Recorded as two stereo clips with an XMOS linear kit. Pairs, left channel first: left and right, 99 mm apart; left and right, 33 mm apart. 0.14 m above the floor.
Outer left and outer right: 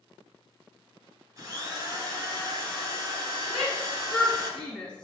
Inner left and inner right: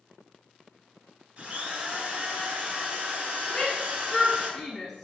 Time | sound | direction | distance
1.4 | a drill | 35° right (ahead or behind) | 2 m
3.5 | a shout | 5° left (ahead or behind) | 1.4 m